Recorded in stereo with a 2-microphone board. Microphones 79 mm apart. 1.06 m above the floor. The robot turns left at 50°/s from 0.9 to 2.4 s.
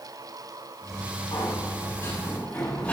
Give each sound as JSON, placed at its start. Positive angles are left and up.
{"t": 1.3, "sound": "a sliding door", "azimuth_deg": 75, "distance_m": 7.5}